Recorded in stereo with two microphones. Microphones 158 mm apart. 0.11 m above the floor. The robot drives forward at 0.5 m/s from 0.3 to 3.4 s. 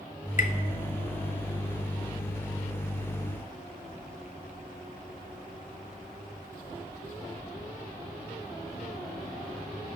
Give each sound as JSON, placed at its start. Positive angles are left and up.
{"t": 0.4, "sound": "tapping", "side_deg": 55, "distance_m": 0.5}